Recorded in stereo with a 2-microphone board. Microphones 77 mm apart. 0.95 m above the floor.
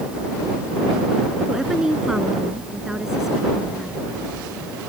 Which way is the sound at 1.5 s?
5° right (ahead or behind).